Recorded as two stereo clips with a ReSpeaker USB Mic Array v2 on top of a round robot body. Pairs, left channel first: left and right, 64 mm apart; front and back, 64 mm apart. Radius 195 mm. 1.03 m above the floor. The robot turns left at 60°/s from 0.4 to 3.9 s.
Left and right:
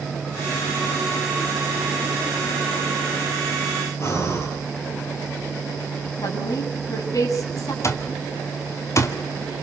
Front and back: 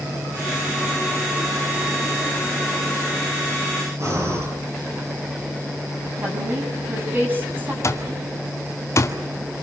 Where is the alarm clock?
45° left, 1.9 m.